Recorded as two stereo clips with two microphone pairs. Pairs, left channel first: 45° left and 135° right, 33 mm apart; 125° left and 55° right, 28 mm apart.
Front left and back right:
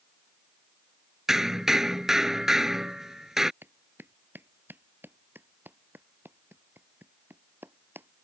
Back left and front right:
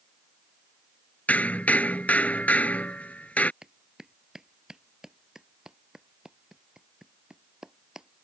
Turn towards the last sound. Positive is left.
turn(degrees=-130)